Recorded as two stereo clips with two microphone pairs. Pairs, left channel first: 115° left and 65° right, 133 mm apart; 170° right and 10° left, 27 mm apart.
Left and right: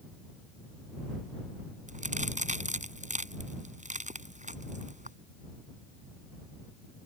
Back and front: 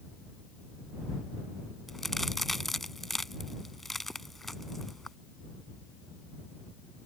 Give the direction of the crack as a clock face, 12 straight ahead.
3 o'clock.